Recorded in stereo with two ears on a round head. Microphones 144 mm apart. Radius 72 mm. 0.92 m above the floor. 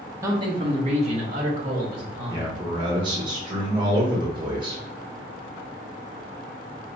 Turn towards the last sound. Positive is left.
turn(degrees=-30)  # may be behind; listen again after turning